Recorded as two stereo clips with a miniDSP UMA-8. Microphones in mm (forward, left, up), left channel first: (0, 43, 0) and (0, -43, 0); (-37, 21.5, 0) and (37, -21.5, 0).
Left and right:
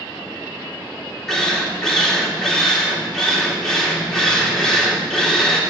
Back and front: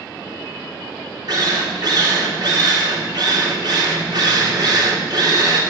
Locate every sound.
1.3 s a drill: 5° left, 3 m